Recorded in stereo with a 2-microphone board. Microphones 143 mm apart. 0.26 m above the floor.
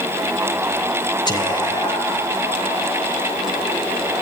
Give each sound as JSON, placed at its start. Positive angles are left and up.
{"t": 1.3, "sound": "whispering", "side_deg": 30, "distance_m": 1.5}